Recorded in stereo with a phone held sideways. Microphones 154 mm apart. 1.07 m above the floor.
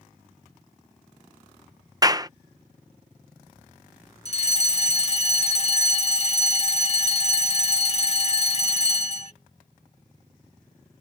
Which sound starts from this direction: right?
A clap, at 2.0 s.